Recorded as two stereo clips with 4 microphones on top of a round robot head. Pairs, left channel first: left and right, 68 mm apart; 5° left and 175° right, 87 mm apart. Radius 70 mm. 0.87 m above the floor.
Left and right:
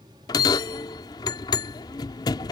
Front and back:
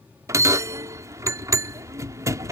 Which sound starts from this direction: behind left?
A bell, at 0.3 s.